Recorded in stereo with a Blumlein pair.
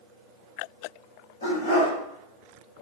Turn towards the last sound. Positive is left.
turn(degrees=70)